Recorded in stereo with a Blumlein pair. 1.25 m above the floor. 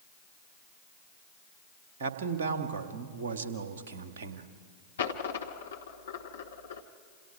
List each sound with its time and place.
2.0 s a man speaking: 60° right, 1.9 m
5.0 s a dropped coin: 65° left, 1.6 m